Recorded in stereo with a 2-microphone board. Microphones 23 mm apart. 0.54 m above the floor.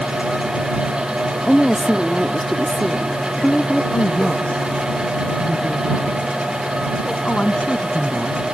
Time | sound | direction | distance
1.5 | a woman speaking | 10° left (ahead or behind) | ?
3.9 | a woman speaking | 55° left (ahead or behind) | ?